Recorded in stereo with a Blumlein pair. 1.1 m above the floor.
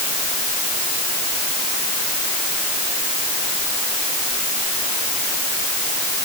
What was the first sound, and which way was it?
Only background noise.